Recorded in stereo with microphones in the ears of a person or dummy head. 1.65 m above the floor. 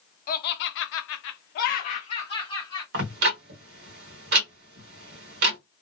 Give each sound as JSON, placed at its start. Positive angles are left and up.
{"t": 0.3, "sound": "laughter", "side_deg": 55, "distance_m": 0.7}
{"t": 2.9, "sound": "ticking", "side_deg": -65, "distance_m": 1.2}